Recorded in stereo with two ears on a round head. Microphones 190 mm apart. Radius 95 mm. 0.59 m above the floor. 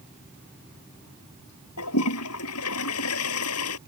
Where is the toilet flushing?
85° left.